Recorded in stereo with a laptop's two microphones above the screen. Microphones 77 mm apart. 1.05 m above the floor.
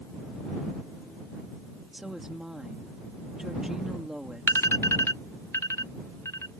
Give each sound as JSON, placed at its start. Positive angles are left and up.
{"t": 1.9, "sound": "a woman speaking", "side_deg": -5}
{"t": 4.5, "sound": "an alarm", "side_deg": 35}